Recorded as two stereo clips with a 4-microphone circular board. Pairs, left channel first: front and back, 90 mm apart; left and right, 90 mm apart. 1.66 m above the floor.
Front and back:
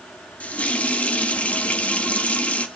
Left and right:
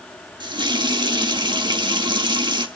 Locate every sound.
0.4 s a running tap: 70° right, 1.8 m